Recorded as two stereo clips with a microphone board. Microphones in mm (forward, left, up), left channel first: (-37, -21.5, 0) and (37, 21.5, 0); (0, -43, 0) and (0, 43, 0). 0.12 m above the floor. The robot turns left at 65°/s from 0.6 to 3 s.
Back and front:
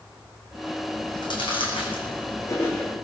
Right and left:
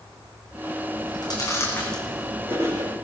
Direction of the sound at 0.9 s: 105° right.